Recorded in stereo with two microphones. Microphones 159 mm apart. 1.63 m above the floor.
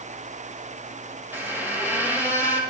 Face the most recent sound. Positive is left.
turn(degrees=-15)  # may be behind; listen again after turning